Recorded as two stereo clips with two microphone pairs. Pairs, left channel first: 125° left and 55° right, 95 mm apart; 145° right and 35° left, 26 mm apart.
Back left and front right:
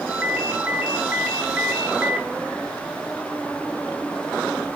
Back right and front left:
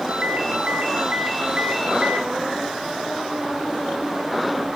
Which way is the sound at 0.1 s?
25° left.